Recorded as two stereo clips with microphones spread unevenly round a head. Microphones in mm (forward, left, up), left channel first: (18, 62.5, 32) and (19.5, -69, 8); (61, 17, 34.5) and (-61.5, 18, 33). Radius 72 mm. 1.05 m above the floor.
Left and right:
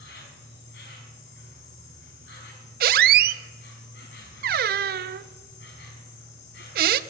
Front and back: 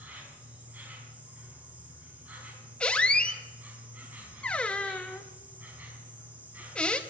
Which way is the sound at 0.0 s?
100° left.